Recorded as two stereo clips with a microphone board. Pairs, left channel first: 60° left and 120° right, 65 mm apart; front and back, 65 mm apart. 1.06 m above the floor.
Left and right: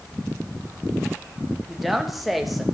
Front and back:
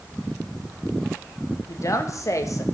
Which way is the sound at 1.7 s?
30° right.